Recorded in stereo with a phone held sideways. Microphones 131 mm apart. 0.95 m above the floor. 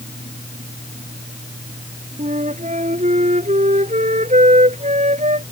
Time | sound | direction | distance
0.0 | a fan | 70° right (ahead or behind) | ?
2.2 | a flute | 65° right (ahead or behind) | ?